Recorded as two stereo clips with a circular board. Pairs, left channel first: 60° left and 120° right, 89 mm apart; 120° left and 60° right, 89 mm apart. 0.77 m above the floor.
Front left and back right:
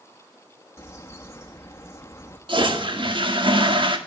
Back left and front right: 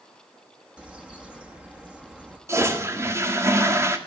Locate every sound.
0.8 s a bird: 15° left, 1.4 m
2.5 s a toilet flushing: 115° right, 1.6 m